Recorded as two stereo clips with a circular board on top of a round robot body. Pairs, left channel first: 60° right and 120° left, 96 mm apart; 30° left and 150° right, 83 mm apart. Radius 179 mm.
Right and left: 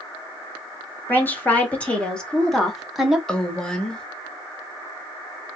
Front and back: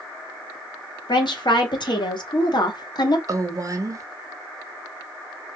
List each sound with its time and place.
1.1 s a woman speaking: 10° left, 2.5 m; by 3.2 s 40° left, 1.5 m
3.3 s a woman speaking: 140° right, 1.5 m